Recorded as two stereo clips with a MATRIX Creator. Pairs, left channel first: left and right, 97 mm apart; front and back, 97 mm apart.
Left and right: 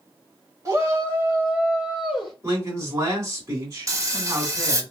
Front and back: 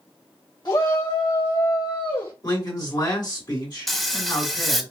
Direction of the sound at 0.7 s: 40° right.